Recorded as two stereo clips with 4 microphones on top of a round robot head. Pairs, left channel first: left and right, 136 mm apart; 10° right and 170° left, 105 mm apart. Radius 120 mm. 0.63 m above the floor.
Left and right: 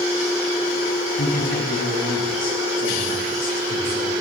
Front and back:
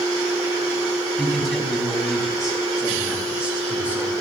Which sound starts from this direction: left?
A man speaking, at 1.2 s.